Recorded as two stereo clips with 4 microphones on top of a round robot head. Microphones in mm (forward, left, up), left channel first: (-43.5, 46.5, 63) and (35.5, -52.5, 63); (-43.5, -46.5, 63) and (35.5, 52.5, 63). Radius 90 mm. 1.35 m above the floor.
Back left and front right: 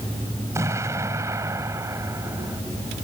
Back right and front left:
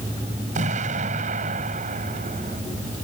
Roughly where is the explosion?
Ahead.